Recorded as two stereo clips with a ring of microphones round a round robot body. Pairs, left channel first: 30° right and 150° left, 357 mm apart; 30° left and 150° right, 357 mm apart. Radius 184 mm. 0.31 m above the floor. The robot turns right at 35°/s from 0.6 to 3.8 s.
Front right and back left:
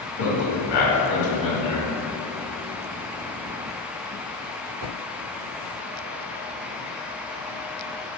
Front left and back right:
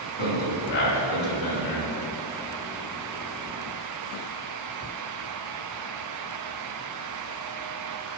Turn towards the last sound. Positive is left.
turn(degrees=80)